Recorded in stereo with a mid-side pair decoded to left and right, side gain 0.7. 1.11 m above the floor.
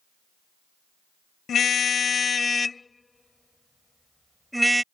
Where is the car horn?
35° left; by 4.8 s 10° right.